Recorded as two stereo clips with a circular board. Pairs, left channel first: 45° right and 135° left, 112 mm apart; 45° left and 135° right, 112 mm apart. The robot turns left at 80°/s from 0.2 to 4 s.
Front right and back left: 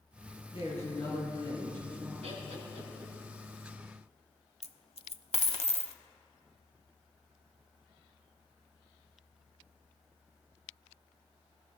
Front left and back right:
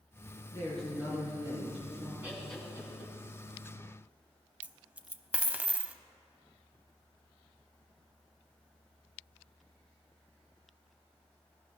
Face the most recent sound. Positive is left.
turn(degrees=-60)